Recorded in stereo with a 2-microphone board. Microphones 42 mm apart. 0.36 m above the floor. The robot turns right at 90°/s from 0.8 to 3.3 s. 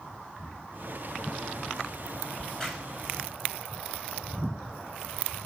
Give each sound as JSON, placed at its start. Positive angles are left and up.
{"t": 2.4, "sound": "a crack", "side_deg": 30, "distance_m": 2.5}